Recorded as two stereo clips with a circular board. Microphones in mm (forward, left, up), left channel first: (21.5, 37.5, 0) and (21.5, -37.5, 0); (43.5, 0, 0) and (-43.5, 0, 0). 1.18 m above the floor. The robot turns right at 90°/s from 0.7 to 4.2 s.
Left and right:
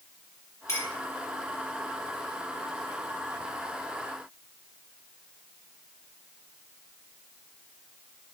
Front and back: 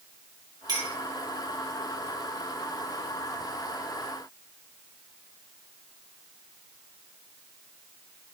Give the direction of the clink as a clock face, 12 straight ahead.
7 o'clock.